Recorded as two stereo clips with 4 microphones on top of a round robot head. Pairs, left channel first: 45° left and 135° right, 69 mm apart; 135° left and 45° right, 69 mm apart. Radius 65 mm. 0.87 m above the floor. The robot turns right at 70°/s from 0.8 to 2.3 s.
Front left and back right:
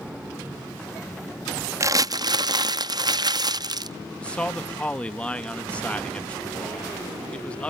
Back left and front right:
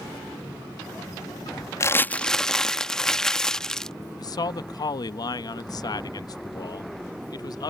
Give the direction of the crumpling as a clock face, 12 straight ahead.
6 o'clock.